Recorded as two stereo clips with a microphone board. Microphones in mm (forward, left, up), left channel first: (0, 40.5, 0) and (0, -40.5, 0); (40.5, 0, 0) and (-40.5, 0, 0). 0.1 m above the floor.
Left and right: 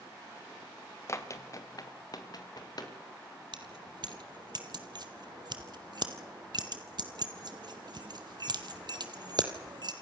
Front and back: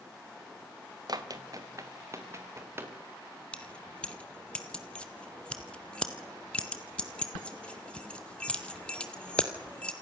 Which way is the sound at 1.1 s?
145° left.